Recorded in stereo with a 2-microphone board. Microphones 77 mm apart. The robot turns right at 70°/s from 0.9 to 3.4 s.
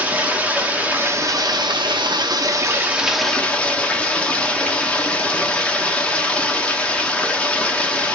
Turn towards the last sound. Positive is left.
turn(degrees=15)